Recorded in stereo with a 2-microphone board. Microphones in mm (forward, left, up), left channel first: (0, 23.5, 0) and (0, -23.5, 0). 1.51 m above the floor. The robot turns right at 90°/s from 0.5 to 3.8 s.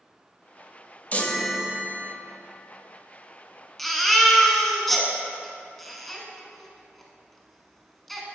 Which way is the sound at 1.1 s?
145° left.